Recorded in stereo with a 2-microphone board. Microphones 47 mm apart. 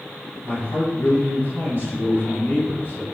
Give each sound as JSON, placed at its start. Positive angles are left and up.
{"t": 0.4, "sound": "a man speaking", "side_deg": 30, "distance_m": 1.8}